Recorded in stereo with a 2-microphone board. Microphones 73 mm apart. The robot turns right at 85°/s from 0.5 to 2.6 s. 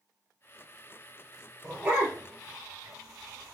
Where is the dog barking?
Centre (ahead or behind), 1.4 m; by 3.5 s 70° right (ahead or behind), 1.4 m.